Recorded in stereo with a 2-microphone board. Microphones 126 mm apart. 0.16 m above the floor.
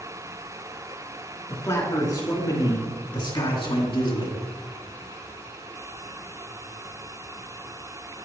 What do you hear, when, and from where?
1.5 s a man speaking: 25° left (ahead or behind), 2 m; by 4.4 s 45° left (ahead or behind), 2 m